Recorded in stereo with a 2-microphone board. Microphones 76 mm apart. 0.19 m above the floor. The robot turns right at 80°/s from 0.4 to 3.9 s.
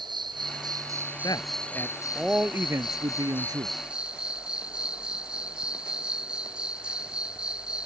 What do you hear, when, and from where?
0.0 s an insect: 85° right; by 7.9 s 165° right
1.2 s a man speaking: 105° left; by 3.8 s 50° right